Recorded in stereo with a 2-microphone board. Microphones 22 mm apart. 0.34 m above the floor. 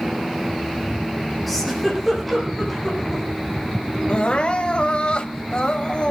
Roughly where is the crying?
Left.